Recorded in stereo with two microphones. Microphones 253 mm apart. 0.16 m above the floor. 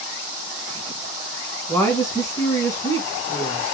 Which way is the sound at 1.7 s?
10° left (ahead or behind).